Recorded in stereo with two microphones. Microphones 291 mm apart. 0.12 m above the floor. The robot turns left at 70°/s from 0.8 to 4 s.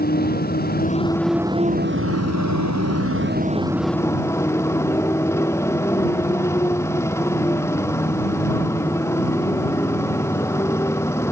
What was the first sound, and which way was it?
A motorcycle, 35° left.